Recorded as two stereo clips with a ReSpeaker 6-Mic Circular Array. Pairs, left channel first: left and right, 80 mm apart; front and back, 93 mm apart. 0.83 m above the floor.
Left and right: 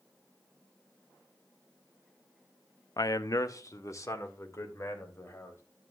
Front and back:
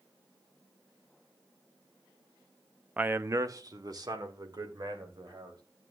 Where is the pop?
I don't hear a pop.